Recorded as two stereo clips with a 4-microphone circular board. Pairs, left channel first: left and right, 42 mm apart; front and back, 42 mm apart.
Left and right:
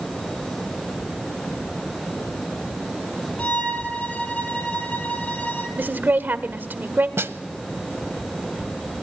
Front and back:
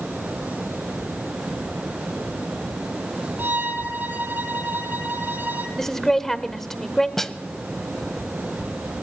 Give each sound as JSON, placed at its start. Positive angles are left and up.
{"t": 3.4, "sound": "a violin", "azimuth_deg": 145, "distance_m": 3.5}
{"t": 5.8, "sound": "a woman speaking", "azimuth_deg": -80, "distance_m": 1.5}
{"t": 7.2, "sound": "a snare drum", "azimuth_deg": -80, "distance_m": 0.9}